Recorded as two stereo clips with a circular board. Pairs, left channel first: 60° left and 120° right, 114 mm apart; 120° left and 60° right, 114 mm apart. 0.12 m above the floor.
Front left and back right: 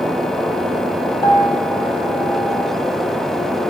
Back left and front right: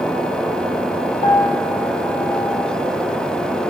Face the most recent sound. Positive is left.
turn(degrees=125)